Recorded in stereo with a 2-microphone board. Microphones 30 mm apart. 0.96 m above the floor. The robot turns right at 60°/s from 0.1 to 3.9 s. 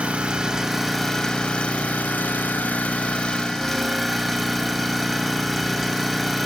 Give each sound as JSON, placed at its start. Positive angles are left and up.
{"t": 0.0, "sound": "an engine running", "azimuth_deg": -45, "distance_m": 1.1}